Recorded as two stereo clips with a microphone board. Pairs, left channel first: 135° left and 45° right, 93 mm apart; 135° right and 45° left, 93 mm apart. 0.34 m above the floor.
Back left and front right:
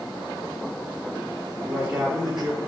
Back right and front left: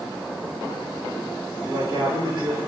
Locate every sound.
1.6 s a man speaking: 35° left, 3.5 m